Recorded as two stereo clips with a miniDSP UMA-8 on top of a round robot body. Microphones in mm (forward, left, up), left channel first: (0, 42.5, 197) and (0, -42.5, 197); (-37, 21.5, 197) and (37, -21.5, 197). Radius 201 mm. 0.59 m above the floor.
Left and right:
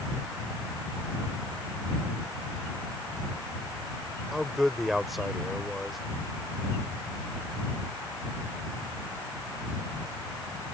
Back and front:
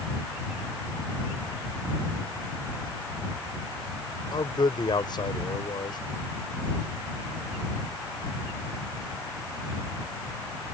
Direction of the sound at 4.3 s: Straight behind.